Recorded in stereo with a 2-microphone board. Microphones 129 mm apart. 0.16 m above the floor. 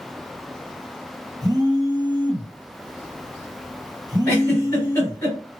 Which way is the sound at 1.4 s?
30° right (ahead or behind).